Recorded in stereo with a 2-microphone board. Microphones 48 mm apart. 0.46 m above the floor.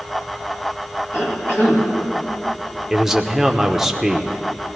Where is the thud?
No thud in this recording.